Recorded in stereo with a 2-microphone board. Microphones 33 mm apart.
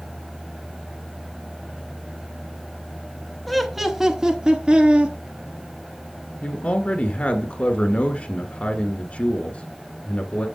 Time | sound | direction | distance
3.5 | laughter | 5° left (ahead or behind) | 1.1 m
6.4 | a man speaking | 45° left (ahead or behind) | 1.6 m